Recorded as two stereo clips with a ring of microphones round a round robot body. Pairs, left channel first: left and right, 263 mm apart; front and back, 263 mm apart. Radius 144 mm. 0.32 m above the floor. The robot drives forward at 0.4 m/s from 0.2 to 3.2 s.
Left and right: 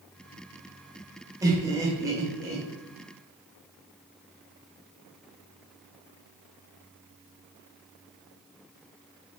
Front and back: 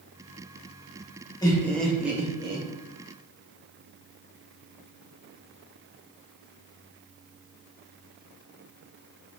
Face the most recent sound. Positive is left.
turn(degrees=-160)